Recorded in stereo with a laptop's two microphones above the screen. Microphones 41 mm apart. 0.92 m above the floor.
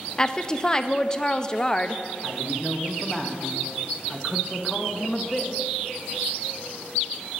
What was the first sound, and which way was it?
A woman speaking, 20° left (ahead or behind).